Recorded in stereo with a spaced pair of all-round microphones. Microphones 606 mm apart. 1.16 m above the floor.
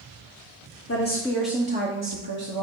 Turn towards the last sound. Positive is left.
turn(degrees=-50)  # may be behind; listen again after turning